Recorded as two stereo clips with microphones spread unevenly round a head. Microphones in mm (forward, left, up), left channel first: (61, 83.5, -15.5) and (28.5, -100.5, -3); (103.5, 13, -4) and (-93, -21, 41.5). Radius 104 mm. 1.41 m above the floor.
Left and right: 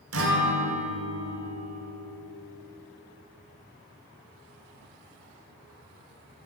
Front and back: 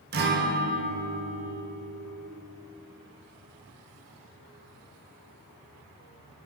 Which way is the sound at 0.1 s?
125° right.